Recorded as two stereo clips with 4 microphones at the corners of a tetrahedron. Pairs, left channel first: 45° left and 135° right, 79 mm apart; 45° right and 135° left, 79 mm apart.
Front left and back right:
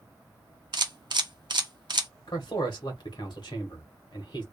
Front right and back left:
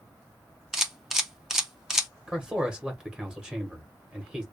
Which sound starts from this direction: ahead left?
A man speaking, at 2.3 s.